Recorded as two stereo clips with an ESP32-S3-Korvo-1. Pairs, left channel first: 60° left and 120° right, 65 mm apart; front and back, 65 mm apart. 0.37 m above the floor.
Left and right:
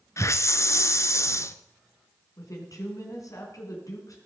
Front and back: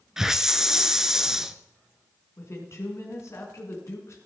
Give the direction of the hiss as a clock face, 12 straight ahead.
9 o'clock.